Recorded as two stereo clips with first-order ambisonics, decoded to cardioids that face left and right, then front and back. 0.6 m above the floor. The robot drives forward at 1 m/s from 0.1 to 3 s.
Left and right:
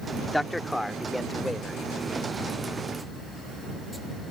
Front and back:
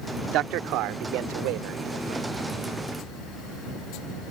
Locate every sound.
0.3 s a man speaking: 175° left; by 2.2 s straight behind